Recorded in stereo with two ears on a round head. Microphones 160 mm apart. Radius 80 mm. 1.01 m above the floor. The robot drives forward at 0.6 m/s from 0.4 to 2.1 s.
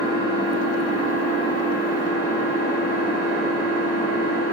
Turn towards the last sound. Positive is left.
turn(degrees=-65)  # may be behind; listen again after turning